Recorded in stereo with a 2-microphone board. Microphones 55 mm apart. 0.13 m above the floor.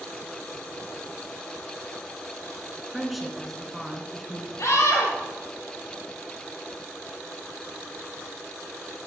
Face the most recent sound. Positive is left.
turn(degrees=65)  # may be behind; listen again after turning